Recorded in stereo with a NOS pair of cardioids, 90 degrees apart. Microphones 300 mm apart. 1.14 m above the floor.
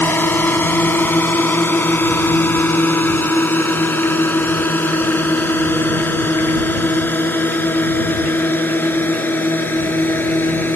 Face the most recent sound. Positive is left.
turn(degrees=5)